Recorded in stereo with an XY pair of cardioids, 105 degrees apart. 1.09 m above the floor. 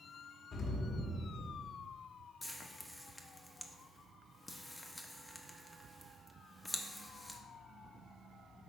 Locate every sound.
0.5 s an explosion: 60° left, 1.6 m
2.4 s frying: 15° left, 0.8 m